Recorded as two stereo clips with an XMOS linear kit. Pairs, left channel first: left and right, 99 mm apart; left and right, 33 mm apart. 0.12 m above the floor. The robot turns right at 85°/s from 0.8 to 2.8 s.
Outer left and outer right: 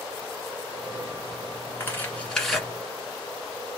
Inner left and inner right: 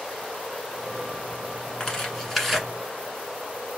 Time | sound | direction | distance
1.8 | tearing paper | 20° left (ahead or behind) | 1.0 m